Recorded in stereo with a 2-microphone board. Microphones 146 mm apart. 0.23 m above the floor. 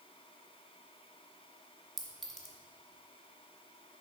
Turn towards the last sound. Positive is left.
turn(degrees=0)  # may be behind; listen again after turning